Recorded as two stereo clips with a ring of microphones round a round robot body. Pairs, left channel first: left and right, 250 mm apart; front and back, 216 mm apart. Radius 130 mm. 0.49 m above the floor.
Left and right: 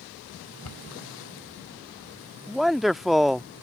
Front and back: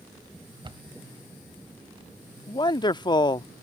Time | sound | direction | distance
0.6 | a cupboard door | 110° left | ?
2.5 | a man speaking | straight ahead | ?